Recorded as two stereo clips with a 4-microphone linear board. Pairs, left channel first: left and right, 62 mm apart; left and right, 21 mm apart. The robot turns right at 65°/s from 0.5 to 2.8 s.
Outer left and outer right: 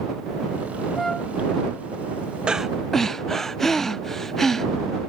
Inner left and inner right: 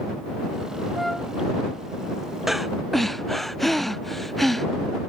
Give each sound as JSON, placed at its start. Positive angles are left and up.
{"t": 0.9, "sound": "a flute", "side_deg": 0}
{"t": 2.5, "sound": "breathing", "side_deg": -15}